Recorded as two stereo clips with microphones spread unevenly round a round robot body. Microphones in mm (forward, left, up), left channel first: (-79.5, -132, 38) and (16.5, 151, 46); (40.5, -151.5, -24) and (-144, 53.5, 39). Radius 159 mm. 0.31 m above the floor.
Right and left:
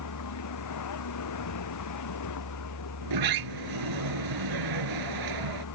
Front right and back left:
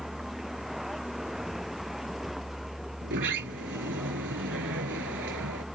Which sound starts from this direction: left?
A sliding door, at 3.0 s.